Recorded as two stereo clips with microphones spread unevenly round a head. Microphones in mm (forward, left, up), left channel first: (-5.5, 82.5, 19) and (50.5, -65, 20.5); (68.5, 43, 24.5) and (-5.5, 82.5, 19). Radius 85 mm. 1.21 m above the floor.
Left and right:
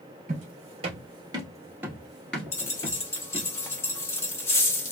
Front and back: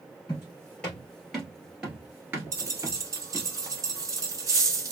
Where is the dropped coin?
175° left, 0.7 m.